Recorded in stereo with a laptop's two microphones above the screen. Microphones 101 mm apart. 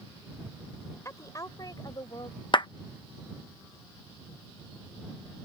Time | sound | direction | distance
1.1 | a woman speaking | 30° left (ahead or behind) | ?
2.5 | a clap | 45° left (ahead or behind) | ?